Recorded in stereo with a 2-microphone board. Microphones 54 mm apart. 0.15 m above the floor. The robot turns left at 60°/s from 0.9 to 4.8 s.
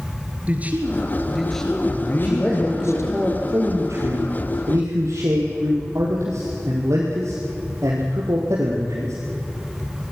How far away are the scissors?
I don't hear scissors.